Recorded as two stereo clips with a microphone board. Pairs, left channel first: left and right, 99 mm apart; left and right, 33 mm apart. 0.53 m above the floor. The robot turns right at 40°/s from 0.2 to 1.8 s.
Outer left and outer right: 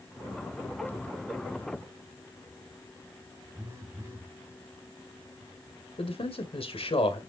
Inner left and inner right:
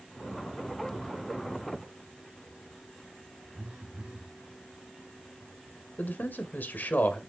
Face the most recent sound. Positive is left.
turn(degrees=65)  # may be behind; listen again after turning